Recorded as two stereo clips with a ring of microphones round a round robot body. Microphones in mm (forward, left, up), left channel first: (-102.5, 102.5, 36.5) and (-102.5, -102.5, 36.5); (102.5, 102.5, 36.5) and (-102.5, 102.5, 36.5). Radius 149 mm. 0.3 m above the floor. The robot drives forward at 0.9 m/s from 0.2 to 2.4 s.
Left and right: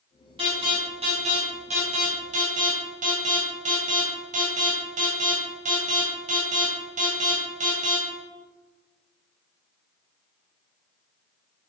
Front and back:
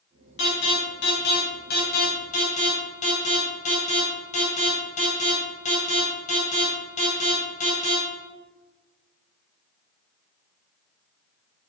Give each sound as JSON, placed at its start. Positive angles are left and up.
{"t": 0.4, "sound": "an alarm", "azimuth_deg": -20, "distance_m": 3.5}